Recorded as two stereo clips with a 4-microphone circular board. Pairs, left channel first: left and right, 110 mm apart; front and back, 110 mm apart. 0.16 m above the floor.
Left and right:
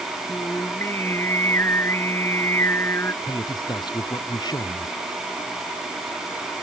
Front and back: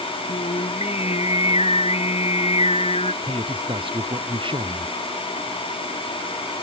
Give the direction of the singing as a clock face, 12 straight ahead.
11 o'clock.